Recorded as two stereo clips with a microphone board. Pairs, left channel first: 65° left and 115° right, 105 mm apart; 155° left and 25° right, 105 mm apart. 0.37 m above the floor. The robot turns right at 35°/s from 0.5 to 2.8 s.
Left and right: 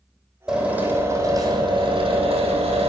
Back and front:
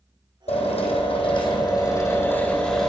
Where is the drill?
165° left, 7.5 m; by 2.9 s 115° right, 7.5 m.